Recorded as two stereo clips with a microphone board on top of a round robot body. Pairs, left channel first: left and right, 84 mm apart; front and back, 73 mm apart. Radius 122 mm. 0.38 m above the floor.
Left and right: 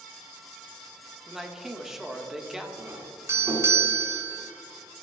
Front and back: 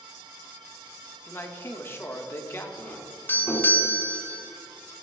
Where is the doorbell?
50° right, 2.5 m.